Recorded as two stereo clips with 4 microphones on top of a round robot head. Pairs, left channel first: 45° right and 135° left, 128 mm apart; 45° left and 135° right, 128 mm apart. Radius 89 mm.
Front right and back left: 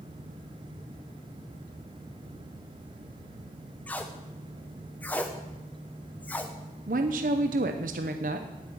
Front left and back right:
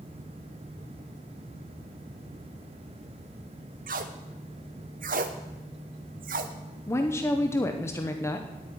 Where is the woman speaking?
115° left, 0.7 m.